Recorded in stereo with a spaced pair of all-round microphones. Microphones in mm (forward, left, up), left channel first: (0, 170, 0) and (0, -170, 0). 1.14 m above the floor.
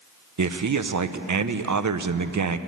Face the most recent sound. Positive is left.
turn(degrees=-60)  # may be behind; listen again after turning